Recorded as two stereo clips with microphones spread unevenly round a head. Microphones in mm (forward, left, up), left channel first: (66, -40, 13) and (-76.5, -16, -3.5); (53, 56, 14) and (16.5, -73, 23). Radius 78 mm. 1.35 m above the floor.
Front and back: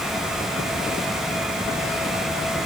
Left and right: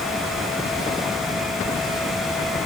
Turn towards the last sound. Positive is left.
No sound to turn to.